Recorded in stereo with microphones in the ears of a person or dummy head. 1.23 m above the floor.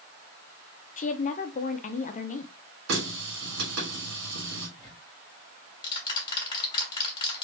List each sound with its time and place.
1.0 s a woman speaking: 35° left (ahead or behind), 0.5 m
2.9 s a running tap: 75° right (ahead or behind), 1.8 m
4.8 s ticking: 25° left (ahead or behind), 1.5 m